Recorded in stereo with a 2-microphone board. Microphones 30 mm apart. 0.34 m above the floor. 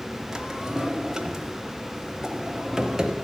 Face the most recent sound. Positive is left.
turn(degrees=-20)  # may be behind; listen again after turning